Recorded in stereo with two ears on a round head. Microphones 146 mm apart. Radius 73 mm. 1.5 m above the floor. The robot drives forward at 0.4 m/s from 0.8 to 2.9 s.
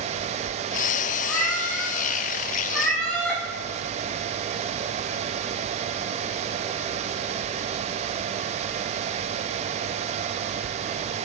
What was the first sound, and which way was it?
A cat meowing, 5° left (ahead or behind).